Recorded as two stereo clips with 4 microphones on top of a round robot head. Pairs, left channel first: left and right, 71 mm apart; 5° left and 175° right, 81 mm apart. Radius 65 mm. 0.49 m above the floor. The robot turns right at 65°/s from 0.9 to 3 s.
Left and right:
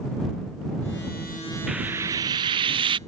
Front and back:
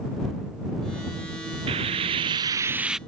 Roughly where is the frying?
Behind.